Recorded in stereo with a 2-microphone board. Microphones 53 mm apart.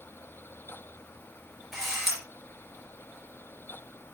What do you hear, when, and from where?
1.7 s a camera shutter: 5° right (ahead or behind), 3.5 m